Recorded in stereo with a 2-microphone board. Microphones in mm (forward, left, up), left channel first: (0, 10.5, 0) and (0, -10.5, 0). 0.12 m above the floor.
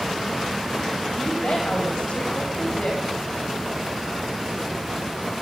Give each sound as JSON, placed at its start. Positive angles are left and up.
{"t": 1.2, "sound": "a woman speaking", "side_deg": 80, "distance_m": 6.0}